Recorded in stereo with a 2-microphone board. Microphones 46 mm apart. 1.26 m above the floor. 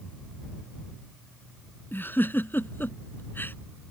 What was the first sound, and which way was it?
A giggle, 50° left (ahead or behind).